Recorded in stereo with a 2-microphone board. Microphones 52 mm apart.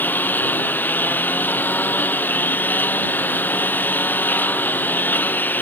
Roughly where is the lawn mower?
Left.